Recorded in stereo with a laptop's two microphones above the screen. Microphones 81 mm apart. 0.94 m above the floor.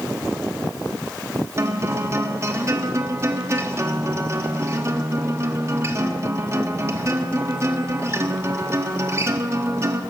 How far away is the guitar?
About 1.6 m.